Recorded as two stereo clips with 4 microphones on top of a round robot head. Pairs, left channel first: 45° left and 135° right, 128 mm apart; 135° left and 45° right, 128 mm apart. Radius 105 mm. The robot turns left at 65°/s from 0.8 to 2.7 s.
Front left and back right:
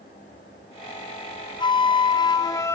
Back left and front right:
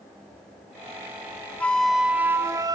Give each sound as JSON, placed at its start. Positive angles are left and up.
{"t": 1.6, "sound": "a flute", "azimuth_deg": 65, "distance_m": 0.6}